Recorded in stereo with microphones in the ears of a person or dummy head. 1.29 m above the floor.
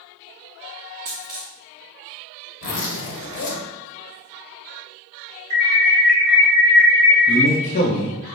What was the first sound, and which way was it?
A dropped coin, 20° right (ahead or behind).